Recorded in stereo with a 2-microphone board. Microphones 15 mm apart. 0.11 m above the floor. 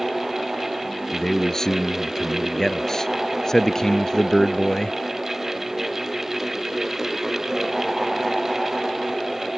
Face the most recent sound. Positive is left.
turn(degrees=35)  # may be behind; listen again after turning